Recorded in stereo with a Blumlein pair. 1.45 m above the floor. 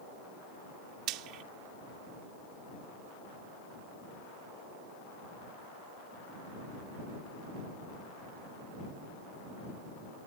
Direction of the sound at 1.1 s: 40° right.